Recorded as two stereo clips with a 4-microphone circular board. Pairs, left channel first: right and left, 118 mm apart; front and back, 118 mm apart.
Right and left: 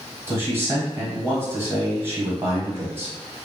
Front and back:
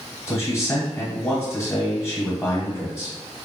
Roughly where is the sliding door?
I don't hear a sliding door.